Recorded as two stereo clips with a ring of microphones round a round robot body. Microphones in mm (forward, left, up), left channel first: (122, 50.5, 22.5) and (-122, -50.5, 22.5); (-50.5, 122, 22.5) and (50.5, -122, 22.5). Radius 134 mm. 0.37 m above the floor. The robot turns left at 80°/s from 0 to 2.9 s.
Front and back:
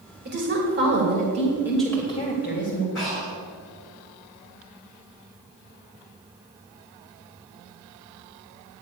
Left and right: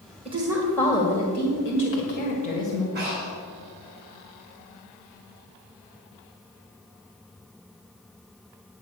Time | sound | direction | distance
0.2 | a woman speaking | 125° right | 1.9 m
3.0 | breathing | 20° right | 5 m